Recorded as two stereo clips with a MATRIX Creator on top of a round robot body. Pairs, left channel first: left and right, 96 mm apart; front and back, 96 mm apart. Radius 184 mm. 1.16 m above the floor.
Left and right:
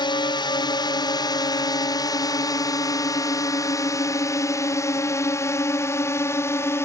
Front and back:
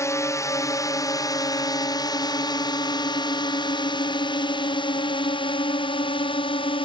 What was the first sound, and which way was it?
A drone, 60° left.